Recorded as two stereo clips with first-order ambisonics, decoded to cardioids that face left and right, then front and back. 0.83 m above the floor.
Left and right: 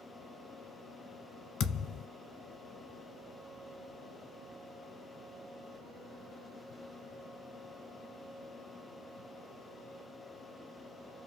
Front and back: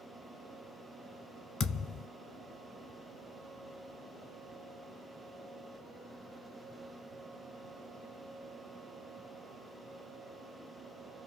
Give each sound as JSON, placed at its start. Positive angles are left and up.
{"t": 1.6, "sound": "a thud", "azimuth_deg": 55, "distance_m": 0.9}